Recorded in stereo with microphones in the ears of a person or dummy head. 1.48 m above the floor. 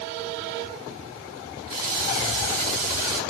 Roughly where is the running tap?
Right.